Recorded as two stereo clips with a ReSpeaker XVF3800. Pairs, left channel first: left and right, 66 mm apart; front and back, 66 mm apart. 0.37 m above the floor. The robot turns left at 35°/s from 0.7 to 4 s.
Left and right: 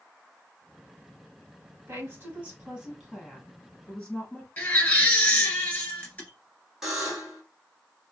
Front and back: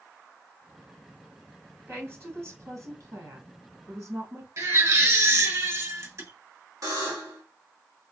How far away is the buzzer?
About 1.8 m.